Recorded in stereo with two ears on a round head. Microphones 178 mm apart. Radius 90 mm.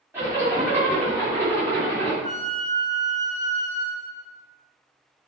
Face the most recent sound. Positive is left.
turn(degrees=-40)  # may be behind; listen again after turning